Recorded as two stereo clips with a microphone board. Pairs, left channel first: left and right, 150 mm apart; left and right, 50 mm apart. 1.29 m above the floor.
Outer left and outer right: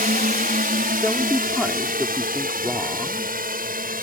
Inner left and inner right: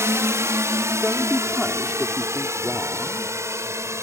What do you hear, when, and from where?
0.0 s a drone: 70° right (ahead or behind)
1.0 s a man speaking: 5° right (ahead or behind)